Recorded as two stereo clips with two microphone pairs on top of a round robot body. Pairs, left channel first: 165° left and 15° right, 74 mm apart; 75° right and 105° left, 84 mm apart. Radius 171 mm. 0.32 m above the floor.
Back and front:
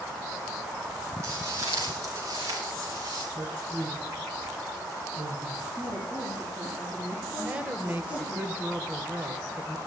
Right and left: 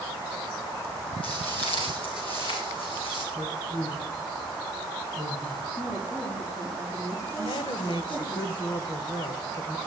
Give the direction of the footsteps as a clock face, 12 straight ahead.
2 o'clock.